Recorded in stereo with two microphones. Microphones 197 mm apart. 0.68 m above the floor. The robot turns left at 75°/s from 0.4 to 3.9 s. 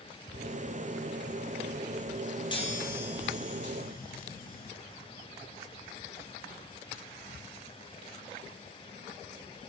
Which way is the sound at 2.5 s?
155° left.